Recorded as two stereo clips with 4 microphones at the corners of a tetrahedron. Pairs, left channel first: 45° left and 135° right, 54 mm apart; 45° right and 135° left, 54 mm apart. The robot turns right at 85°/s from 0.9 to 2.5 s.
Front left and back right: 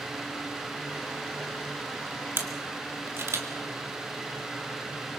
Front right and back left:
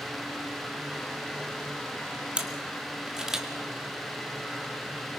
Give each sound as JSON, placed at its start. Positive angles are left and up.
{"t": 2.4, "sound": "a camera shutter", "azimuth_deg": -160, "distance_m": 1.9}